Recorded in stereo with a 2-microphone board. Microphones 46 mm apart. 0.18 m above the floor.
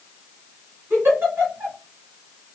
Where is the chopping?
No chopping in this recording.